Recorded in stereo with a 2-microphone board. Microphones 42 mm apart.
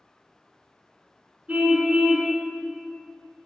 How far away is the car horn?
About 3.5 m.